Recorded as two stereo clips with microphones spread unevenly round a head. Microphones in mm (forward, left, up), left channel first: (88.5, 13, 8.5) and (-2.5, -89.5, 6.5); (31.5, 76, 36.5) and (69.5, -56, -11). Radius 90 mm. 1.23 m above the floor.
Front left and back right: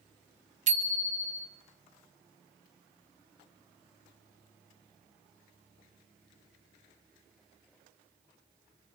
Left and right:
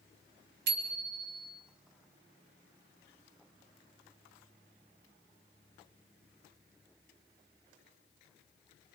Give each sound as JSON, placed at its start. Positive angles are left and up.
{"t": 0.7, "sound": "a bicycle bell", "azimuth_deg": -95, "distance_m": 2.0}